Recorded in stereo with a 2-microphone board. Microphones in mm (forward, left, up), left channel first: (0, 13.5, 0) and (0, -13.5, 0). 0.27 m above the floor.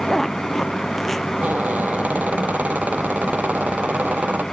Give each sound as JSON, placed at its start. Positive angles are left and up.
{"t": 0.1, "sound": "a zipper", "side_deg": 10}
{"t": 1.4, "sound": "a squeak", "side_deg": -80}